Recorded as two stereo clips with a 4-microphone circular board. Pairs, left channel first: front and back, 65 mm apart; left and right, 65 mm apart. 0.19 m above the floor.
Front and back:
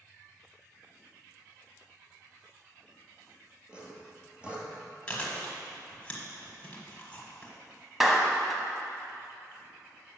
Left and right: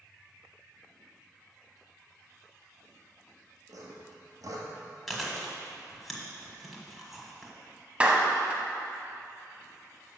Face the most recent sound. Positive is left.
turn(degrees=-100)